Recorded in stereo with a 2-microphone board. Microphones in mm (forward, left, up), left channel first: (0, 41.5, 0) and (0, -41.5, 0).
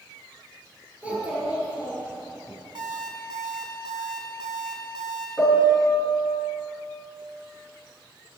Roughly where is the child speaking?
Centre.